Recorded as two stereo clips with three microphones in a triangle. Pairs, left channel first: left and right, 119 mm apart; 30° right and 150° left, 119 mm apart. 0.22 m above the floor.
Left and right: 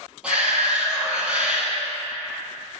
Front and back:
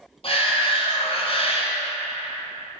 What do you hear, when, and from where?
0.2 s a shout: 10° right, 1.5 m